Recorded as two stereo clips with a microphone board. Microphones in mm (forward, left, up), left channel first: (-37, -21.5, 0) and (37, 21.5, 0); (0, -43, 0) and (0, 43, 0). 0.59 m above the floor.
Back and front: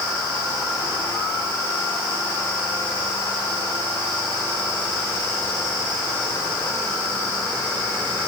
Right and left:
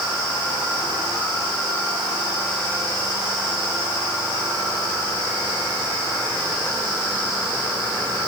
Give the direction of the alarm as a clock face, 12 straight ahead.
No alarm in this recording.